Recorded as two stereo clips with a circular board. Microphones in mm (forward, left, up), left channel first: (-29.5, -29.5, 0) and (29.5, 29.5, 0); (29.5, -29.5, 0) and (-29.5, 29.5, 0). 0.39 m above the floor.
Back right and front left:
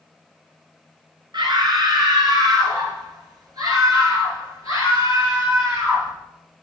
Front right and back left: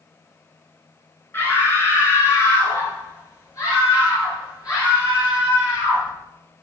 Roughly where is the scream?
Ahead.